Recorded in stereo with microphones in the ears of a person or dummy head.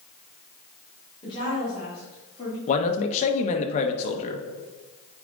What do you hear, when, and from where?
1.2 s a woman speaking: 30° left (ahead or behind), 3 m; by 2.6 s 25° left (ahead or behind), 2 m
2.7 s a man speaking: 40° left (ahead or behind), 1.0 m